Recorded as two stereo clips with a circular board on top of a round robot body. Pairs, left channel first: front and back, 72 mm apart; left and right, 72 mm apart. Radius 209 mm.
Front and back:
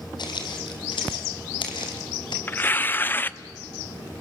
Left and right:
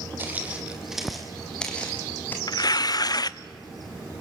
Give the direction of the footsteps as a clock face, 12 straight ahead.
1 o'clock.